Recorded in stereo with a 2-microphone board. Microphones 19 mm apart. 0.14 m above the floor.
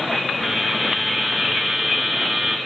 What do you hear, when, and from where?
0.4 s a buzzer: 10° left (ahead or behind), 2.0 m